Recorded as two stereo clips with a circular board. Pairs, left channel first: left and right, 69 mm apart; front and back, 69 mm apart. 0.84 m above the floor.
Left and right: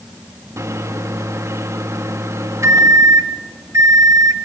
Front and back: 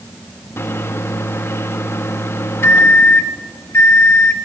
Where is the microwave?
50° right, 1.1 m.